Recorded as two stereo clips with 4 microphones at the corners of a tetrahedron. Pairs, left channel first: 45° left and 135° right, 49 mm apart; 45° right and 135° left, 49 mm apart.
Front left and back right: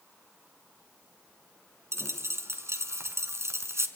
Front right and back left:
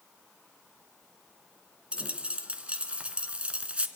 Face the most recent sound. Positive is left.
turn(degrees=-160)